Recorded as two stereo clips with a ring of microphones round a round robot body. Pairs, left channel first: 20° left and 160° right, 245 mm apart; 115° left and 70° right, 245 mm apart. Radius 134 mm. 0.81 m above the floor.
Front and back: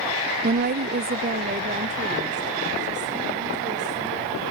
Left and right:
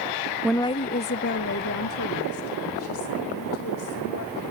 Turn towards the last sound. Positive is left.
turn(degrees=140)